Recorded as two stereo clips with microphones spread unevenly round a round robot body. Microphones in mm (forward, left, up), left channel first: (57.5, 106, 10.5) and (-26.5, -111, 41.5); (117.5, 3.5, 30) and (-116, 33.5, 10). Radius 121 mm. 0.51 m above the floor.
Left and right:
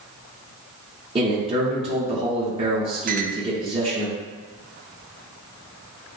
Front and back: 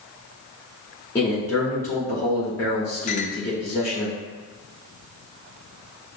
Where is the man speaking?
75° right, 1.3 m.